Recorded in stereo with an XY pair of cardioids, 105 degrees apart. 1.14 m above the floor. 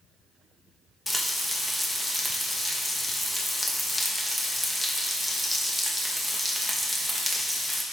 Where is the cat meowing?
No cat meowing in this recording.